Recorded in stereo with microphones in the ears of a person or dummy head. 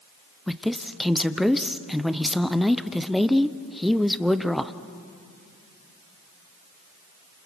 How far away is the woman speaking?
About 0.7 m.